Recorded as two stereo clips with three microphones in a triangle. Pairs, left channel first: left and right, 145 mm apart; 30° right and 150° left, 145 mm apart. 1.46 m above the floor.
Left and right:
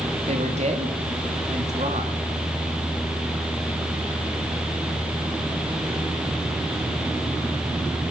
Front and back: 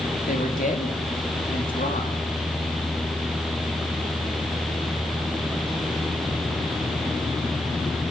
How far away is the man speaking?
About 3.5 m.